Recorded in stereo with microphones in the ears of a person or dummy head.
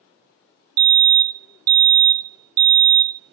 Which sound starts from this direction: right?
A fire alarm, at 0.8 s.